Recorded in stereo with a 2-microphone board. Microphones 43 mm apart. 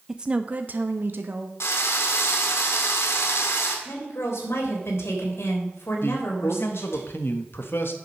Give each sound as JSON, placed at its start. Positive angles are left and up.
{"t": 0.1, "sound": "a woman speaking", "side_deg": -10, "distance_m": 0.5}
{"t": 1.6, "sound": "a drill", "side_deg": 85, "distance_m": 1.8}
{"t": 3.9, "sound": "a woman speaking", "side_deg": 80, "distance_m": 3.5}
{"t": 6.0, "sound": "a man speaking", "side_deg": 60, "distance_m": 1.3}